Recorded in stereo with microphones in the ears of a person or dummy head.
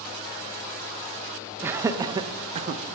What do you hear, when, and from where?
1.6 s laughter: 10° right (ahead or behind), 1.2 m; by 2.8 s 45° right (ahead or behind), 1.2 m